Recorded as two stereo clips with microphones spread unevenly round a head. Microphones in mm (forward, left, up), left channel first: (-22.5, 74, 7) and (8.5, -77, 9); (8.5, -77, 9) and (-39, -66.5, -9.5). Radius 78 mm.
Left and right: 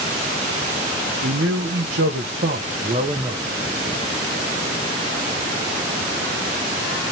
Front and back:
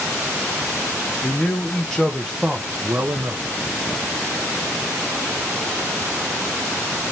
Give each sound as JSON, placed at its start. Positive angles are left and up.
{"t": 1.2, "sound": "a man speaking", "azimuth_deg": -65, "distance_m": 1.1}